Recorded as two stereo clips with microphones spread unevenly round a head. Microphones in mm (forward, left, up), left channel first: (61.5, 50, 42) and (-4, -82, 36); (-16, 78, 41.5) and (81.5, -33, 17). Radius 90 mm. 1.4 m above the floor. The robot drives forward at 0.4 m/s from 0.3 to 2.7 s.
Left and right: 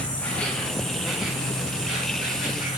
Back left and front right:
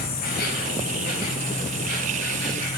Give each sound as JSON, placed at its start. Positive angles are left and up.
{"t": 0.0, "sound": "an insect", "azimuth_deg": 145, "distance_m": 1.0}